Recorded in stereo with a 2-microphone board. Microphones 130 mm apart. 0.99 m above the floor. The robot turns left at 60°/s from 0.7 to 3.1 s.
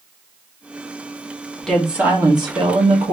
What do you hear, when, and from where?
1.6 s a woman speaking: 10° left, 1.4 m; by 3.1 s 80° right, 1.4 m